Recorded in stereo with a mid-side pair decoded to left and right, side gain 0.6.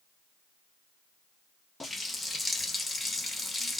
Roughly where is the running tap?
Ahead.